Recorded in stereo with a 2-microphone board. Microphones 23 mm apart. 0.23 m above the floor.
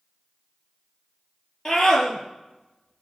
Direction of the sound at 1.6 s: 15° left (ahead or behind).